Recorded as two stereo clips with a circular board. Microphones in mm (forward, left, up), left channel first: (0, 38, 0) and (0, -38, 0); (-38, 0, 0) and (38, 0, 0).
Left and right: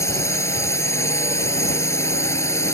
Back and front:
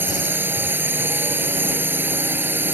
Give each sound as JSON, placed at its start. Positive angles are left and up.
{"t": 0.0, "sound": "a drone", "azimuth_deg": 55}